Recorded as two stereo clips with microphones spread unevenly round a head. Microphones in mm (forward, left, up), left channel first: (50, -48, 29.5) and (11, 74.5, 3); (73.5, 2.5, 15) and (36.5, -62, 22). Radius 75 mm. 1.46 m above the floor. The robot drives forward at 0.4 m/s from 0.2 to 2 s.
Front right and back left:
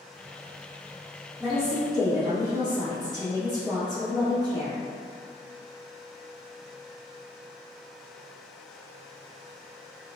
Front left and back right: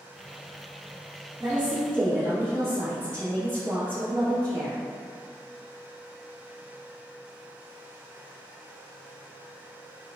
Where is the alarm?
I don't hear an alarm.